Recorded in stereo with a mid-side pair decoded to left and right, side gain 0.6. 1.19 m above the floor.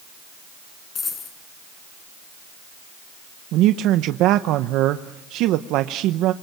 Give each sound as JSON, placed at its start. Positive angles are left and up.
{"t": 0.9, "sound": "a dropped coin", "azimuth_deg": 40, "distance_m": 6.5}
{"t": 3.5, "sound": "a man speaking", "azimuth_deg": -70, "distance_m": 0.9}